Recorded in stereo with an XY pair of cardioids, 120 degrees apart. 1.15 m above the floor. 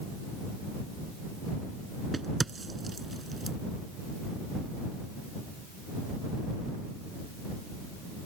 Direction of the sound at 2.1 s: 20° right.